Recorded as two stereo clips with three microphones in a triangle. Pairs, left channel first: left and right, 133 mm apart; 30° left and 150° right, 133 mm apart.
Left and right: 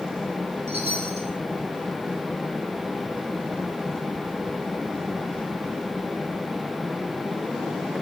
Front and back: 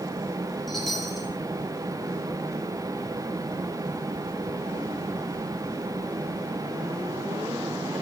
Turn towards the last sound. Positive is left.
turn(degrees=-60)